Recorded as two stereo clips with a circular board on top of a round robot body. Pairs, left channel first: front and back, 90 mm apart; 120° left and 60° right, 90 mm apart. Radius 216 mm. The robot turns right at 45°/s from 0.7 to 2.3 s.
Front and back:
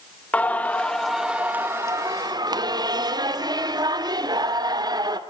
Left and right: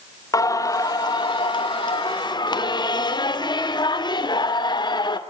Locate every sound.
0.3 s singing: 75° left, 2.5 m; by 5.2 s 145° left, 2.5 m